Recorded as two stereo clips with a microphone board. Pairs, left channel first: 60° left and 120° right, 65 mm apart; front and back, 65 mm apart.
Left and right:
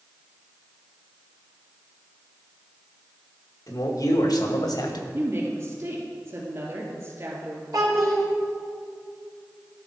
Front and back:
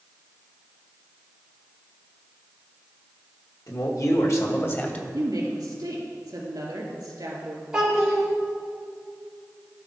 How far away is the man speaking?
About 1.6 m.